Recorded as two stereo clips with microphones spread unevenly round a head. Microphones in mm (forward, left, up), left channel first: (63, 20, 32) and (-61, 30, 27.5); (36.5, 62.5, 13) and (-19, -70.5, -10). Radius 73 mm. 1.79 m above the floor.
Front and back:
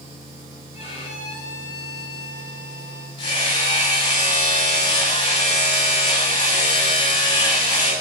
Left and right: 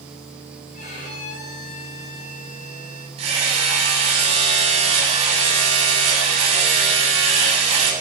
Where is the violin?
35° left, 5 m.